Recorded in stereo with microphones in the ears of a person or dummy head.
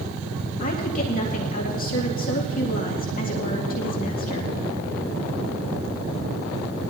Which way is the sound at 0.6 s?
45° left (ahead or behind).